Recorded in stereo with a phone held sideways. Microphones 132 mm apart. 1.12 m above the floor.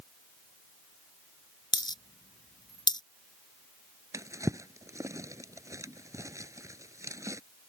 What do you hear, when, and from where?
1.7 s a dropped coin: 35° left (ahead or behind)
4.1 s a drawer: 25° right (ahead or behind)